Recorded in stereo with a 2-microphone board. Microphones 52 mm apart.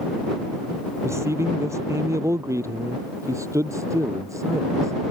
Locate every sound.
1.0 s a man speaking: 65° right (ahead or behind); by 5.1 s 80° right